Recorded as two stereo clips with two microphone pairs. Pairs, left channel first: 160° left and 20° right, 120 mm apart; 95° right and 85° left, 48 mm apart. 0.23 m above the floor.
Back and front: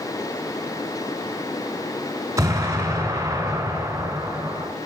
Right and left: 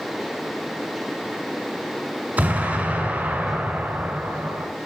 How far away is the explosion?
About 1.4 m.